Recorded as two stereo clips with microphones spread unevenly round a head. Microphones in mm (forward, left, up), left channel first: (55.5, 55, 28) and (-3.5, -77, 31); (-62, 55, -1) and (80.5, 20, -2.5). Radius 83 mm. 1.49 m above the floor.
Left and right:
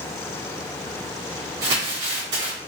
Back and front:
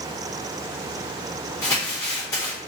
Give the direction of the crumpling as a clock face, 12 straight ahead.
4 o'clock.